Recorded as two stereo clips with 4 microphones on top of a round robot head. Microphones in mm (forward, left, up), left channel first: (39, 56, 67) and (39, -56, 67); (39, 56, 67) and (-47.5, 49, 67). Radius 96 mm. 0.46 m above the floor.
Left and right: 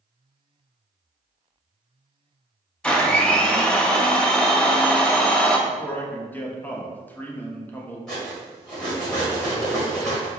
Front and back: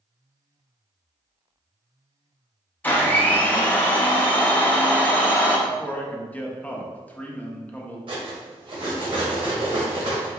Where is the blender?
30° left, 0.9 m.